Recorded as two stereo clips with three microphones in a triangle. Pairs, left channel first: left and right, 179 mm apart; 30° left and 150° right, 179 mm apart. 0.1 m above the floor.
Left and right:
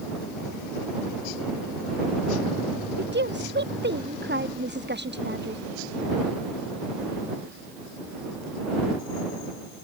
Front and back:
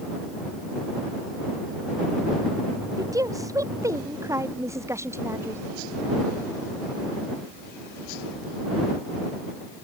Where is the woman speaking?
80° right; by 5.6 s 75° right.